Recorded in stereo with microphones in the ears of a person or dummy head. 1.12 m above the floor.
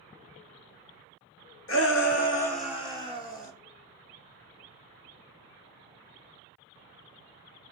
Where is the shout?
60° left (ahead or behind), 1.0 m; by 3.5 s 25° left (ahead or behind), 2.5 m.